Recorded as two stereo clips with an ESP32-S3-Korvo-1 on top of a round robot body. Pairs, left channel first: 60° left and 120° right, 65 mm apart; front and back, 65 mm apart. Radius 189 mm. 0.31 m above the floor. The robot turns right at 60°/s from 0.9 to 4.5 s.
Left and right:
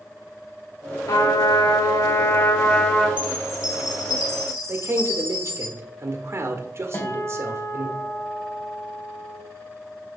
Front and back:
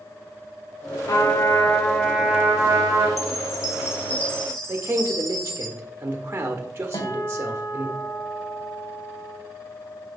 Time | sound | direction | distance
1.1 | a trumpet | 40° left | 2 m
3.2 | a chime | 5° left | 1.6 m
4.7 | a man speaking | 135° right | 1.6 m
6.9 | a guitar | 10° left | 2 m